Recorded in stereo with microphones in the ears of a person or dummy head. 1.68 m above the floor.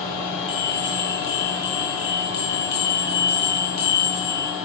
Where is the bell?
25° left (ahead or behind), 0.7 m.